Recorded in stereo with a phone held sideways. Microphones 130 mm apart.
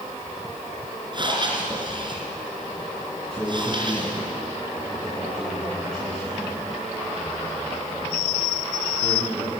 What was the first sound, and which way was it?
Breathing, 35° right (ahead or behind).